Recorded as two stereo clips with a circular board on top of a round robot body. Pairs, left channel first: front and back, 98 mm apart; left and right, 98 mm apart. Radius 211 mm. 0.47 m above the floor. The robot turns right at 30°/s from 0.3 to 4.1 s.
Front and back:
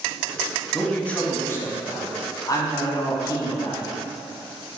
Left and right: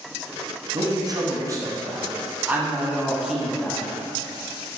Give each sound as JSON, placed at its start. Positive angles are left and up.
{"t": 0.7, "sound": "a man speaking", "azimuth_deg": -80, "distance_m": 1.1}